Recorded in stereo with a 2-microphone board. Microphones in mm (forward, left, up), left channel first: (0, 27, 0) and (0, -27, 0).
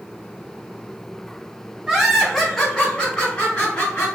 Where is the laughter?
15° right (ahead or behind), 0.9 m; by 4.1 s 30° left (ahead or behind), 1.4 m.